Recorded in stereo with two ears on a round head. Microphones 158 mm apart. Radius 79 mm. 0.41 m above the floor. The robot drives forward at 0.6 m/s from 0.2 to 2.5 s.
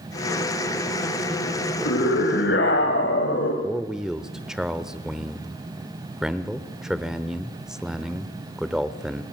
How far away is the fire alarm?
I don't hear a fire alarm.